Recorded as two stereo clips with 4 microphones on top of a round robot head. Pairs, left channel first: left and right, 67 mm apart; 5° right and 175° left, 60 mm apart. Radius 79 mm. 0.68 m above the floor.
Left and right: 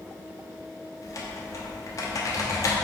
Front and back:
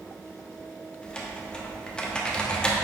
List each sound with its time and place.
1.0 s typing on a keyboard: 70° left, 1.2 m